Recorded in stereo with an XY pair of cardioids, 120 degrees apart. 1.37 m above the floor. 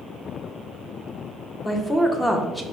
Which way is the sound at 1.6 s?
15° left.